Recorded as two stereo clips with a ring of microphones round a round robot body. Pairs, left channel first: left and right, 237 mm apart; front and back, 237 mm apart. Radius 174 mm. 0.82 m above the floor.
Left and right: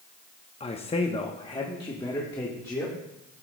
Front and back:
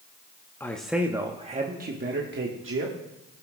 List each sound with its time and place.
0.6 s a man speaking: 70° left, 0.8 m; by 2.9 s 170° left, 1.5 m